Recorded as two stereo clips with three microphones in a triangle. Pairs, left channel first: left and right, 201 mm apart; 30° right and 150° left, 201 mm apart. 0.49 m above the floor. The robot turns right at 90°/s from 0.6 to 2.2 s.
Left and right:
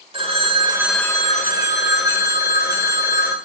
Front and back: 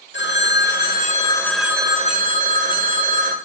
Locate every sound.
0.1 s a phone ringing: 30° right, 1.3 m; by 3.4 s 115° left, 1.3 m